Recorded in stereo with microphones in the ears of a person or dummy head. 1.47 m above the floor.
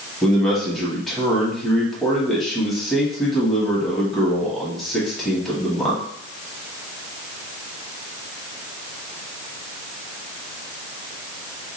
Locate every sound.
0.2 s a man speaking: centre (ahead or behind), 1.5 m